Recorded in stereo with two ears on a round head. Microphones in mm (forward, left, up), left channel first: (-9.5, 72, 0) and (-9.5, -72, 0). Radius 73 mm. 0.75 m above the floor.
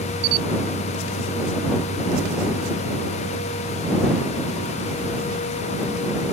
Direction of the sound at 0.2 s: 50° right (ahead or behind).